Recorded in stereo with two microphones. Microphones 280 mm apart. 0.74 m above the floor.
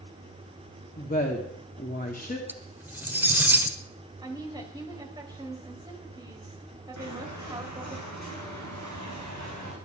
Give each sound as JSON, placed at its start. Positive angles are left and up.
{"t": 1.0, "sound": "a woman speaking", "side_deg": 30, "distance_m": 1.7}
{"t": 2.5, "sound": "cutlery clinking", "side_deg": -5, "distance_m": 1.3}
{"t": 4.2, "sound": "a woman speaking", "side_deg": -15, "distance_m": 3.5}
{"t": 7.0, "sound": "footsteps", "side_deg": -85, "distance_m": 8.5}